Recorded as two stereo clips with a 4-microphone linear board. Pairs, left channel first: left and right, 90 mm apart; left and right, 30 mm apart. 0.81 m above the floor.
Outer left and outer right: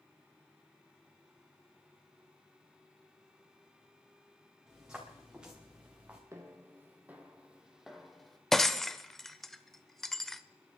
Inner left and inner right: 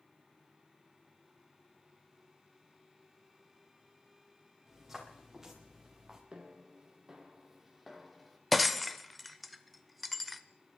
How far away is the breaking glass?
About 0.6 m.